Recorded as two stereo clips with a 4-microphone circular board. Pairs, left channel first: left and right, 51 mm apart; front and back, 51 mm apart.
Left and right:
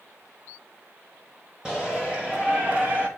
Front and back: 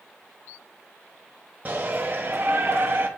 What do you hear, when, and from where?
1.6 s a shout: 155° right, 1.4 m; by 3.1 s 140° right, 1.9 m